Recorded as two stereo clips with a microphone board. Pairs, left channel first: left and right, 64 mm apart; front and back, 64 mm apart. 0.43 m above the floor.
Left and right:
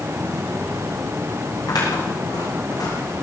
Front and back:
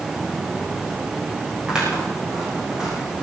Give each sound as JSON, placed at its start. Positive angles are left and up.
{"t": 1.7, "sound": "scissors", "azimuth_deg": 100, "distance_m": 7.5}